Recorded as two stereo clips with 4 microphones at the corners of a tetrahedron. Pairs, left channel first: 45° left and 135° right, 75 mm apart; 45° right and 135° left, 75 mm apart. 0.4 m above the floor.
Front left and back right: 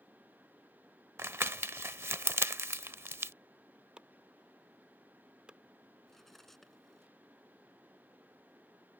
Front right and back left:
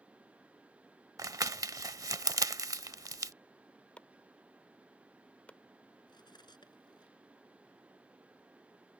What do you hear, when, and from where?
1.2 s crumpling: 170° left
4.0 s chopping: 80° right
6.1 s cutlery clinking: 40° right